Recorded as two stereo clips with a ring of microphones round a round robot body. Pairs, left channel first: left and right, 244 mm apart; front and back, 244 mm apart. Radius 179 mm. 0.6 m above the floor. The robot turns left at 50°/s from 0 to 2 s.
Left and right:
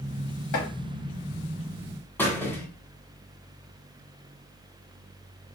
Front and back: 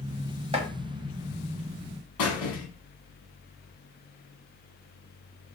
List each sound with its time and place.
0.5 s chopping: 110° left, 1.0 m; by 0.7 s 105° left, 1.0 m
2.2 s a squeak: 5° left, 1.4 m